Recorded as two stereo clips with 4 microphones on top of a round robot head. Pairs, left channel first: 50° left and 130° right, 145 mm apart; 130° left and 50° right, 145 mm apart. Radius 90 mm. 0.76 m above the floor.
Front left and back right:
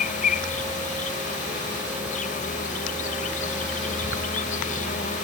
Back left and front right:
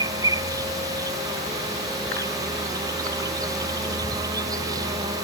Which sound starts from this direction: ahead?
An insect, at 0.0 s.